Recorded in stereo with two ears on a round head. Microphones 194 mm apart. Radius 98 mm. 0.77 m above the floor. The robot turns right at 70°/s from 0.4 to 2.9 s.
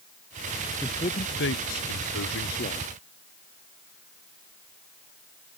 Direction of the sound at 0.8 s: 10° left.